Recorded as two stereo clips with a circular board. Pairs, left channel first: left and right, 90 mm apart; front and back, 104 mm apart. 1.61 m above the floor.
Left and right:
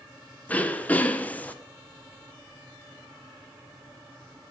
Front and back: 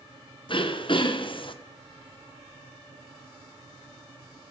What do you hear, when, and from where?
0.5 s throat clearing: 20° left, 0.8 m